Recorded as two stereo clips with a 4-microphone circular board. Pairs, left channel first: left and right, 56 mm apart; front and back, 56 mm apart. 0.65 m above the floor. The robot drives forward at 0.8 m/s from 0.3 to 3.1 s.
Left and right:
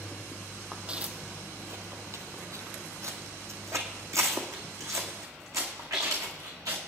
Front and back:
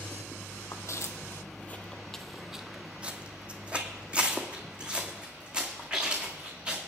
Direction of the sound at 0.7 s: 15° right.